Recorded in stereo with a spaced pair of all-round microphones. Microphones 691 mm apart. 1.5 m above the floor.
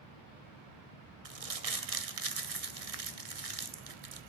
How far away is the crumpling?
About 1.0 m.